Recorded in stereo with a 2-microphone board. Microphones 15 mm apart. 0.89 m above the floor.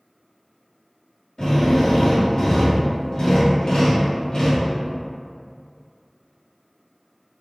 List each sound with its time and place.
1.4 s a drill: 60° left (ahead or behind), 1.3 m